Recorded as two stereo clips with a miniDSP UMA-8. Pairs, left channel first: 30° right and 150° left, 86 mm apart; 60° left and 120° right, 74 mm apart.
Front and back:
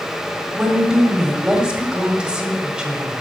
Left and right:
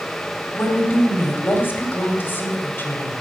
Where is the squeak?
I don't hear a squeak.